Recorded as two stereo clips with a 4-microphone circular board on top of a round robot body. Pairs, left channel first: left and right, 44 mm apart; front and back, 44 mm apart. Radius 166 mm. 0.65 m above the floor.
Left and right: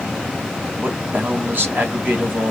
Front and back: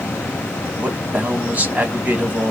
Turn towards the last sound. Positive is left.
turn(degrees=-135)